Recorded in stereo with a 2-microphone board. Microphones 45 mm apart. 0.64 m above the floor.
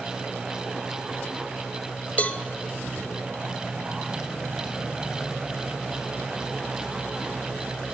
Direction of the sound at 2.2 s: 30° left (ahead or behind).